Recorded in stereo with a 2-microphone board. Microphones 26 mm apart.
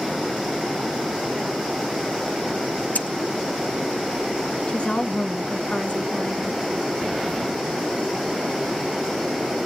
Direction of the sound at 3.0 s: 75° left (ahead or behind).